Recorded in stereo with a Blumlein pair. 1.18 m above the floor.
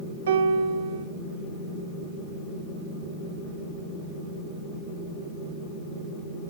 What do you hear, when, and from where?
0.3 s a piano: 60° right, 0.7 m